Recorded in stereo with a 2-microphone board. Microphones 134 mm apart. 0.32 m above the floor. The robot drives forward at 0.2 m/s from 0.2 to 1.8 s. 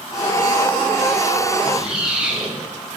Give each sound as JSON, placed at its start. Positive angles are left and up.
{"t": 1.6, "sound": "a squeak", "side_deg": -5, "distance_m": 0.5}